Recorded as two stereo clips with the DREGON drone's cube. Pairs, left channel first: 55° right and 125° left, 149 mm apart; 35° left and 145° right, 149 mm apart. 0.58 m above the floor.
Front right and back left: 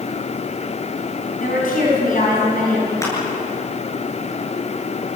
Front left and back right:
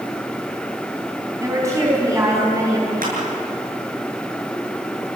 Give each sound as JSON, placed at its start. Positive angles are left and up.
{"t": 1.4, "sound": "a woman speaking", "azimuth_deg": -75, "distance_m": 5.0}
{"t": 3.0, "sound": "crushing", "azimuth_deg": -125, "distance_m": 8.5}